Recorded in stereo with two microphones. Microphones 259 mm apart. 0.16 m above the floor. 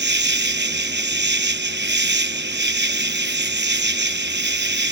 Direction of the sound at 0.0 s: 45° right (ahead or behind).